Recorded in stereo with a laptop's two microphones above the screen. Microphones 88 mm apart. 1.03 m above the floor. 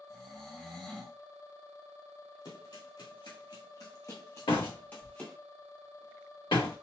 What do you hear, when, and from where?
0.1 s snoring: 10° left (ahead or behind), 1.4 m
2.5 s running footsteps: 60° left (ahead or behind), 1.9 m; by 5.4 s 15° left (ahead or behind), 1.4 m
4.5 s a door slam: 80° left, 1.8 m